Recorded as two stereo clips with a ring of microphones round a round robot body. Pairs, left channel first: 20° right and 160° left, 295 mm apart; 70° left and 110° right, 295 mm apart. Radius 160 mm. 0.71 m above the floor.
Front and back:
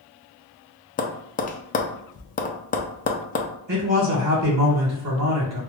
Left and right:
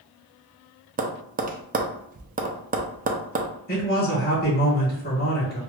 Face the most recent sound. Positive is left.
turn(degrees=125)